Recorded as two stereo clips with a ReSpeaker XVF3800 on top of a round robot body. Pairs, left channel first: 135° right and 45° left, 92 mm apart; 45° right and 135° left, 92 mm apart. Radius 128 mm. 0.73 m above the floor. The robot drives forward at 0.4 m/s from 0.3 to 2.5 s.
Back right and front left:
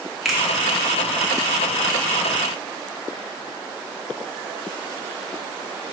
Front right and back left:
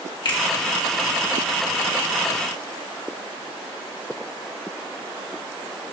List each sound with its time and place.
0.2 s a finger snap: 40° right, 1.4 m